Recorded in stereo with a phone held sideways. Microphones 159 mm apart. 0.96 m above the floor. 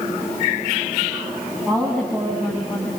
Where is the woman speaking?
10° left (ahead or behind), 7 m.